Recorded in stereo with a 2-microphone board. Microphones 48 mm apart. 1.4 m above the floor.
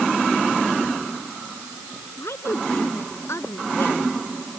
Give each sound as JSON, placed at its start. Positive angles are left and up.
{"t": 2.2, "sound": "a woman speaking", "side_deg": 75}